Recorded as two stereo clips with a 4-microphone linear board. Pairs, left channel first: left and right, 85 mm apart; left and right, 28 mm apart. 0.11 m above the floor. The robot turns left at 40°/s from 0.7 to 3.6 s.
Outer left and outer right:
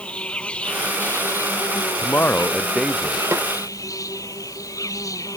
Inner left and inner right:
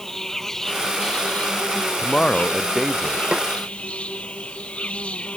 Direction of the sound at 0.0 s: 165° left.